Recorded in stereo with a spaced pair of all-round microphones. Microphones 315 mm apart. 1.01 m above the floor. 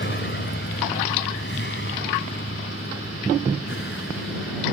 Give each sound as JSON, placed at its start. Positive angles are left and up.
{"t": 0.0, "sound": "a vehicle", "side_deg": 35}